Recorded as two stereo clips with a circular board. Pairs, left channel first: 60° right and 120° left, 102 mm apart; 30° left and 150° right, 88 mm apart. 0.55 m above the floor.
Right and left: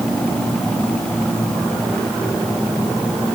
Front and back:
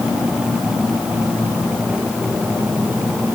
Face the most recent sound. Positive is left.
No sound to turn to.